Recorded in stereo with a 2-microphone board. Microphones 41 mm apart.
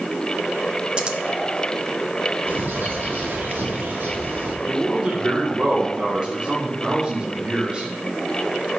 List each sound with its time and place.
1.0 s scissors: 25° right (ahead or behind), 0.6 m
2.5 s a bird: 60° right (ahead or behind), 1.1 m
4.7 s a man speaking: 25° right (ahead or behind), 1.1 m